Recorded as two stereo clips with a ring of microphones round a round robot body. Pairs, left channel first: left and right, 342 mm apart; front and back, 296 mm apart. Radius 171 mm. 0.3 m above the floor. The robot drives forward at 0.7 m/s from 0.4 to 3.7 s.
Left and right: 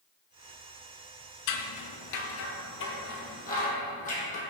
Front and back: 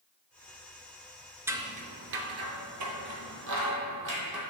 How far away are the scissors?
About 0.7 m.